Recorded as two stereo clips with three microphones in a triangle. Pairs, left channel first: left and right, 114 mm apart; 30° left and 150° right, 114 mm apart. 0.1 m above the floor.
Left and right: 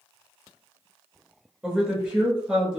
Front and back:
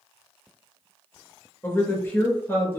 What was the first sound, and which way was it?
A woman speaking, 15° right.